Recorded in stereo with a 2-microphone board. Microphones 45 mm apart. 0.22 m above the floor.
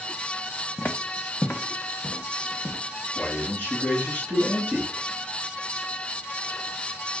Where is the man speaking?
45° left (ahead or behind), 3 m.